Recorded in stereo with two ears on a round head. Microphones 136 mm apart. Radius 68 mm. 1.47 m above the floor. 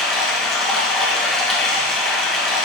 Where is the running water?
Centre (ahead or behind), 0.9 m.